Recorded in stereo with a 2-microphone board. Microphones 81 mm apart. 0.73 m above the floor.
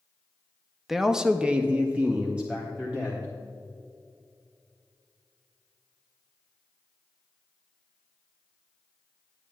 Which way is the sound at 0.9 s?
5° right (ahead or behind).